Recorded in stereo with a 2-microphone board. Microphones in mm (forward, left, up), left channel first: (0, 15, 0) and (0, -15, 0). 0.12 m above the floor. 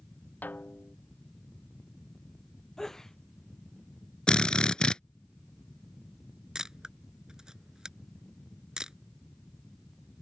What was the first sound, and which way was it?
A snare drum, 80° left.